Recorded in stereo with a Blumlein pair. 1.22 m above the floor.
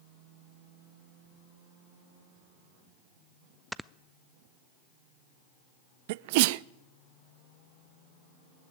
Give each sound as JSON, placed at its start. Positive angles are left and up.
{"t": 3.7, "sound": "snoring", "azimuth_deg": 0, "distance_m": 0.5}
{"t": 6.1, "sound": "a sneeze", "azimuth_deg": -50, "distance_m": 0.5}